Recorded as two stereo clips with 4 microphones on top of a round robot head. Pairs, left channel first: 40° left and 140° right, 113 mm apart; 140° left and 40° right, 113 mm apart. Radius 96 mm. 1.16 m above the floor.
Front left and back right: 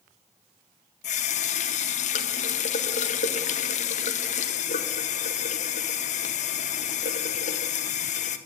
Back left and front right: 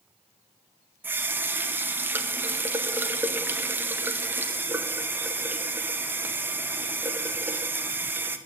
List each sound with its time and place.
1.0 s a running tap: 30° left, 0.8 m